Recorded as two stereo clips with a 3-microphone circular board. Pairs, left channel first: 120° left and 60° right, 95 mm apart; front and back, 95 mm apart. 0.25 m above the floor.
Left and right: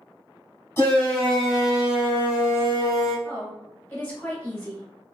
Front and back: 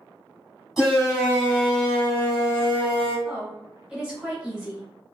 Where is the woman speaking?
110° left, 1.1 m.